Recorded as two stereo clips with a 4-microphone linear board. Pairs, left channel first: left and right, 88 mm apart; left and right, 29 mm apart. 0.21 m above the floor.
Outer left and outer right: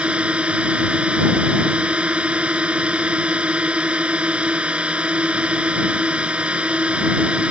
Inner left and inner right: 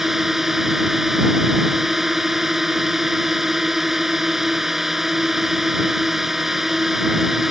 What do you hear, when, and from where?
0.0 s a drone: 15° right (ahead or behind)